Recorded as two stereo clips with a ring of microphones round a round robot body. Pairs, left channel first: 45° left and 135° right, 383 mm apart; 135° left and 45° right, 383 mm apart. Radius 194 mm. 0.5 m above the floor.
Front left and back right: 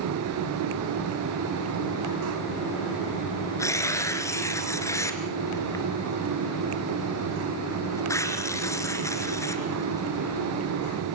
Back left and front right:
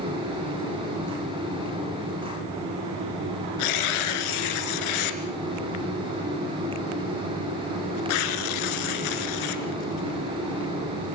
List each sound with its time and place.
3.6 s tearing paper: 130° left, 3 m